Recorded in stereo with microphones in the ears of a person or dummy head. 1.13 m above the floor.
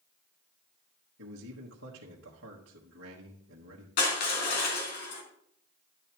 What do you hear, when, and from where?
1.2 s a man speaking: 65° right (ahead or behind), 1.3 m
4.0 s crushing: 60° left (ahead or behind), 3 m